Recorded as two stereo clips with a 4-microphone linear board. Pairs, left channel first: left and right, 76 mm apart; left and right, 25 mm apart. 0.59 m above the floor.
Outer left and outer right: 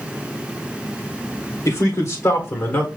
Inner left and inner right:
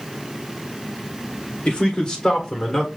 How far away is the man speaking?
About 1.8 m.